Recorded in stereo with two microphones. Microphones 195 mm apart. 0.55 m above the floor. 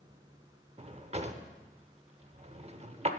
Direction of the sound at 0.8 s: 30° right (ahead or behind).